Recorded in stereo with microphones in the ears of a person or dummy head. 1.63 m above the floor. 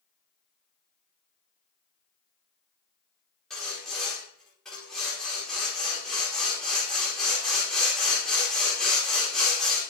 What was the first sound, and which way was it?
Sawing, 5° left (ahead or behind).